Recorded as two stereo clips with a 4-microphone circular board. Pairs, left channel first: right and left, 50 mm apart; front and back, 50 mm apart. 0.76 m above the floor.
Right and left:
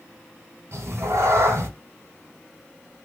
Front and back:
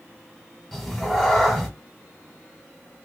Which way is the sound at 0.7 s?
85° left.